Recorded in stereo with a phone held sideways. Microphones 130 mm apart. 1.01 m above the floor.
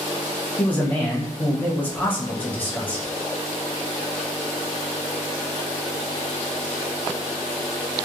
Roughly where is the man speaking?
Centre.